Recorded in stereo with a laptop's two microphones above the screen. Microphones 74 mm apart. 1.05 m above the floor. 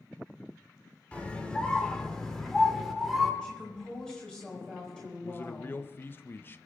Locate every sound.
1.1 s a scream: 15° left (ahead or behind), 3.5 m; by 3.3 s centre (ahead or behind), 3.5 m
3.4 s a woman speaking: 10° left (ahead or behind), 4.5 m
5.2 s a man speaking: 30° left (ahead or behind), 0.6 m